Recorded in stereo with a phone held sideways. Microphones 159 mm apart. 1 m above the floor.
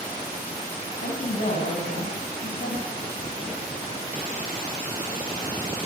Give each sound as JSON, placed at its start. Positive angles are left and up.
{"t": 0.9, "sound": "a woman speaking", "side_deg": 70, "distance_m": 7.0}